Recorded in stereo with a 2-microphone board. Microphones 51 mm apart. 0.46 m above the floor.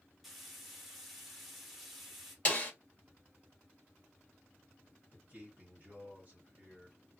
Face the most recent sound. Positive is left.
turn(degrees=-40)  # may be behind; listen again after turning